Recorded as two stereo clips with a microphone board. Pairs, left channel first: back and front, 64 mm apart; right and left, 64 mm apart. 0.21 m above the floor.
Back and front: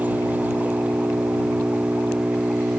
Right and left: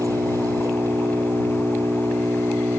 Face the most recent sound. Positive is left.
turn(degrees=65)